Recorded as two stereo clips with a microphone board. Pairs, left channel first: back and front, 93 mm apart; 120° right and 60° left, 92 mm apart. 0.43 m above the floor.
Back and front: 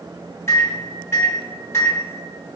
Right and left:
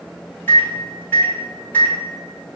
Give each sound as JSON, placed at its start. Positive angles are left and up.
{"t": 0.5, "sound": "a microwave", "azimuth_deg": -165, "distance_m": 0.8}